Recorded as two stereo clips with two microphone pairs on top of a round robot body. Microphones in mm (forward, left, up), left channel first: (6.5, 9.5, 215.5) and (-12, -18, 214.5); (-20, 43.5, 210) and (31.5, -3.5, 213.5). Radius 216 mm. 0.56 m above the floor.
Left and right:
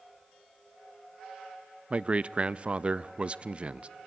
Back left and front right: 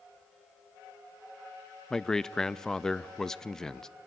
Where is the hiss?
I don't hear a hiss.